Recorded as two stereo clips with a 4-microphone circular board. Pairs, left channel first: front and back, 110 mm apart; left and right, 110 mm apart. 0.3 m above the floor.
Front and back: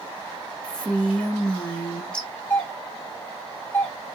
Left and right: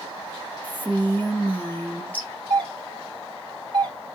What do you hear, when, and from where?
0.6 s a woman speaking: 60° left, 1.2 m
2.5 s a doorbell: 60° right, 2.5 m